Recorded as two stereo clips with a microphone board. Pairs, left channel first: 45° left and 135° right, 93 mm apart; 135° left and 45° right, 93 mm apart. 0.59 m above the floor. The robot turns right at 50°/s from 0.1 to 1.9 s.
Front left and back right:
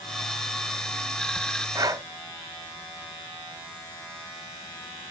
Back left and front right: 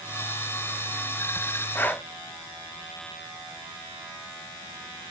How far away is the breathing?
About 0.5 m.